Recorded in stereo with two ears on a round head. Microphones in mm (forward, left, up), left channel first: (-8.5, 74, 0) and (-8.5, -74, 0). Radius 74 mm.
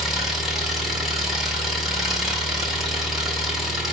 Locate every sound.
0.0 s an engine running: centre (ahead or behind), 1.4 m